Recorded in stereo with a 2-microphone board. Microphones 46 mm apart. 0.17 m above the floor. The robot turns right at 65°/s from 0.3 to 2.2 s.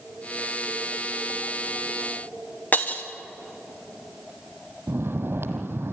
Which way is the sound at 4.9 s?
55° right (ahead or behind).